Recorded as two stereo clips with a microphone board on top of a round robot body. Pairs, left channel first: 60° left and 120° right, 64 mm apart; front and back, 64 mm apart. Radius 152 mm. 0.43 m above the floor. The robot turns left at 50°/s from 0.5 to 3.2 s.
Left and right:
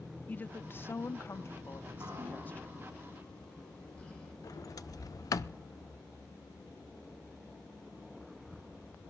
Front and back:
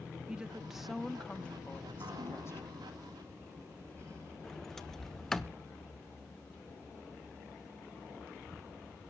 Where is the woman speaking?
110° left, 0.8 m; by 2.8 s 5° right, 0.8 m.